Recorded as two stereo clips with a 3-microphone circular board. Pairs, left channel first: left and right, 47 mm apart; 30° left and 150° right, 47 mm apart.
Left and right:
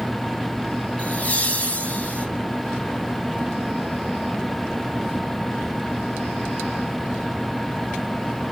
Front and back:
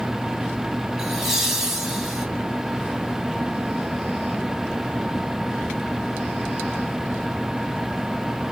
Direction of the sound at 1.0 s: 135° left.